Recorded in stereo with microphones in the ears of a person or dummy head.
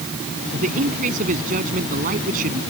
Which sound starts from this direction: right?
A man speaking, at 0.5 s.